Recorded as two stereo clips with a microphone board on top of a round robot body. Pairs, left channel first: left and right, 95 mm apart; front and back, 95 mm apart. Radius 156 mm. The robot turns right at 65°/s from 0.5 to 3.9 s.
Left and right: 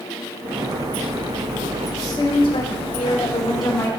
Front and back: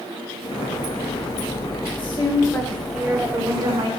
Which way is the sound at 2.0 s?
30° left.